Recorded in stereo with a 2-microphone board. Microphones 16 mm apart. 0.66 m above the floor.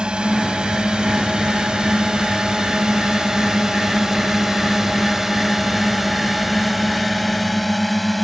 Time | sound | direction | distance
0.0 | a drone | 60° right (ahead or behind) | ?